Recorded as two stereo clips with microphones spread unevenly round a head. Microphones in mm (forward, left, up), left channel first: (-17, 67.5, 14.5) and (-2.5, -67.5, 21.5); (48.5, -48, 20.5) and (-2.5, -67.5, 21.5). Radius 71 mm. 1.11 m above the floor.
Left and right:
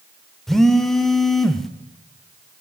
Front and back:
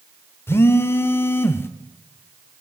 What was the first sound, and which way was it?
A phone buzzing, 5° left.